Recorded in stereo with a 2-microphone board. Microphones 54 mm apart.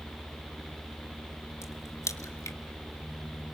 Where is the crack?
65° left (ahead or behind), 2 m.